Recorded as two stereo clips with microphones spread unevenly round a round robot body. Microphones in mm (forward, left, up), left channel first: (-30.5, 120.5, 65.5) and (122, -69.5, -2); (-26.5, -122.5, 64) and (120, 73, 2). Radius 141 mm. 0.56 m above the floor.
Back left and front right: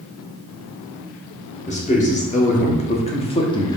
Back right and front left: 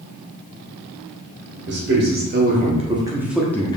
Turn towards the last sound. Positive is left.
turn(degrees=-95)